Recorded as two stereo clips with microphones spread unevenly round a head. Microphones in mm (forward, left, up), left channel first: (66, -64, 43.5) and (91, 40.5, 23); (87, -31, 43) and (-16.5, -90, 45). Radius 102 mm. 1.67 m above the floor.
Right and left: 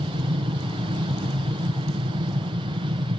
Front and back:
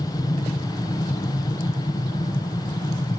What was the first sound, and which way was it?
An aircraft, 85° left.